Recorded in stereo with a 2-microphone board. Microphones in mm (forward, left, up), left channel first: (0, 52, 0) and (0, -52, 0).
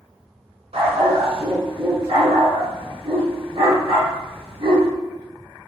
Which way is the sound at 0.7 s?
80° right.